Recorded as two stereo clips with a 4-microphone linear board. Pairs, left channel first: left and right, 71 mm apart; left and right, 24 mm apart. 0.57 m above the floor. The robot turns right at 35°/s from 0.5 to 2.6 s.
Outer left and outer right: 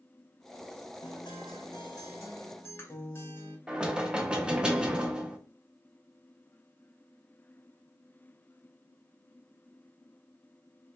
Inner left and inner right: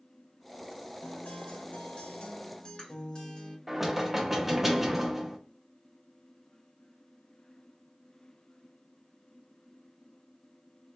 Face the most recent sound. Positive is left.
turn(degrees=-15)  # may be behind; listen again after turning